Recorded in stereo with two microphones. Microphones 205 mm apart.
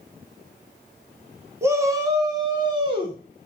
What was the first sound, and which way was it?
A shout, 15° right (ahead or behind).